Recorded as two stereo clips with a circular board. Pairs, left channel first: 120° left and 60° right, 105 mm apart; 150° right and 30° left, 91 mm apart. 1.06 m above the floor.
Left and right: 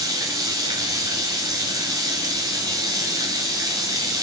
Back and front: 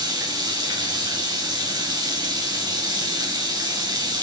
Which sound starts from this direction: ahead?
Running water, at 0.0 s.